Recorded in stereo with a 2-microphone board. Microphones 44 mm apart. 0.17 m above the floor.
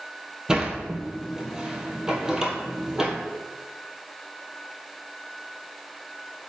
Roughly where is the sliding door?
Centre.